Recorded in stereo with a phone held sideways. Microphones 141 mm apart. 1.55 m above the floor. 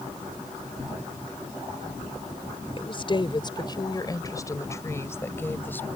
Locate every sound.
2.8 s a woman speaking: 40° left (ahead or behind); by 5.9 s 15° left (ahead or behind)